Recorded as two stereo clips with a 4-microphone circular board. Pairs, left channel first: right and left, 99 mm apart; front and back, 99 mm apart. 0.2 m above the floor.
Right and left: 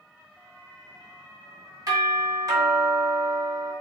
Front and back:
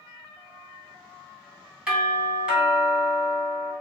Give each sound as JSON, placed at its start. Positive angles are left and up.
{"t": 1.9, "sound": "a doorbell", "azimuth_deg": 105, "distance_m": 2.0}